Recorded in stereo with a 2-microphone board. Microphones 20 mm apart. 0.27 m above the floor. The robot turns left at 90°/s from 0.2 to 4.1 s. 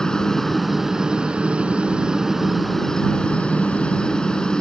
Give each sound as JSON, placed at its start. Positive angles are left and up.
{"t": 0.0, "sound": "a helicopter", "azimuth_deg": 35}